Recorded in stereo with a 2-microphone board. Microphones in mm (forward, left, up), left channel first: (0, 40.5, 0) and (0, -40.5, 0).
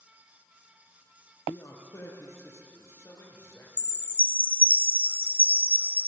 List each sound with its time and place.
1.5 s a man speaking: 40° left (ahead or behind), 3.5 m
3.8 s a chime: 25° left (ahead or behind), 0.8 m